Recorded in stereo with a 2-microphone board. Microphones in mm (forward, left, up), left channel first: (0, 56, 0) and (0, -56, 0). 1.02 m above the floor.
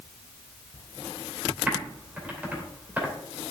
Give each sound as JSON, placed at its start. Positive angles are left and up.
{"t": 1.7, "sound": "typing on a keyboard", "side_deg": -15, "distance_m": 2.5}